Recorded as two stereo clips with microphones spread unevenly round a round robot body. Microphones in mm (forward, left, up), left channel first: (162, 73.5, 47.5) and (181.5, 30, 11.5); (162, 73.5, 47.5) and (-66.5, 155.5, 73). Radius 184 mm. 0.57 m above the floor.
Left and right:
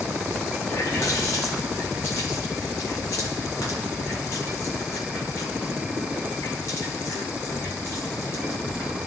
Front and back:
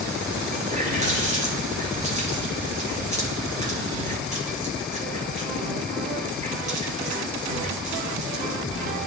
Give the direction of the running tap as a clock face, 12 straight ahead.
9 o'clock.